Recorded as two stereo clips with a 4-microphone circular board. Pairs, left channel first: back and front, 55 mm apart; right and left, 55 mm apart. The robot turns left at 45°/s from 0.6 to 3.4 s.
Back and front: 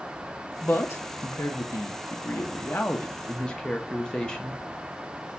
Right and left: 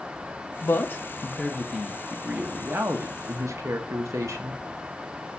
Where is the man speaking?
130° right, 0.9 m; by 4.6 s 105° left, 0.9 m.